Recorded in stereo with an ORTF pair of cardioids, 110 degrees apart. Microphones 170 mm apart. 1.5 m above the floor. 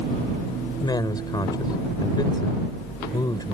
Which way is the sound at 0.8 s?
25° left.